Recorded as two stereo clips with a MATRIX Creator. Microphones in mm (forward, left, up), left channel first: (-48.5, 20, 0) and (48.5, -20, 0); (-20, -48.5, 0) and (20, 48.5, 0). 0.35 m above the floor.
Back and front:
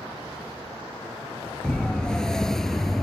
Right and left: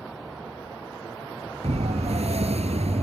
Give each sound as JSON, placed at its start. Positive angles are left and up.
{"t": 1.6, "sound": "a siren", "azimuth_deg": 75}